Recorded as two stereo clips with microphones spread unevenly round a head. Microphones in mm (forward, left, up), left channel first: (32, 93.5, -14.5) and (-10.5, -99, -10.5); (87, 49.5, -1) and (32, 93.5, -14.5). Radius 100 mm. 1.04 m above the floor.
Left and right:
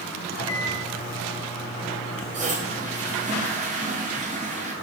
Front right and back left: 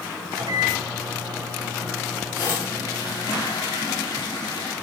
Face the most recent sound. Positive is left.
turn(degrees=-50)